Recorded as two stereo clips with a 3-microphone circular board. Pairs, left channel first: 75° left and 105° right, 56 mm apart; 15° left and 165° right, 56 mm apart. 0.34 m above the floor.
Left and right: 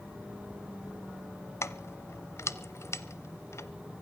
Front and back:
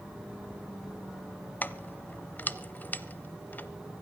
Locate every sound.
1.6 s keys jangling: 65° left, 0.9 m